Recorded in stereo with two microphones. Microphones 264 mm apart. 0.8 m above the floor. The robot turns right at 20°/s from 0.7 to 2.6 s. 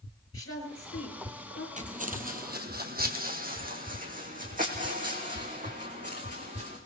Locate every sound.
0.3 s a woman speaking: 75° left (ahead or behind), 4.5 m; by 1.7 s 80° left, 4.5 m
1.8 s footsteps: 30° right (ahead or behind), 1.5 m